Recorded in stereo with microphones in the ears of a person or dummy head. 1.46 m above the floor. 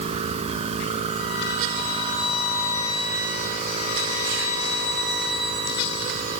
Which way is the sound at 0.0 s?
35° right (ahead or behind).